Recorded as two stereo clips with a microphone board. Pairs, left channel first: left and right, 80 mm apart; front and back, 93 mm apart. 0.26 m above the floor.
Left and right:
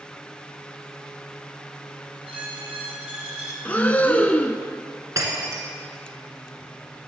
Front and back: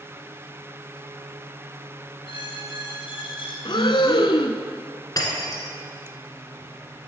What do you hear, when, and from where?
2.2 s a squeak: 15° right, 2.5 m
3.6 s breathing: 20° left, 0.6 m
5.2 s breaking glass: 45° right, 1.7 m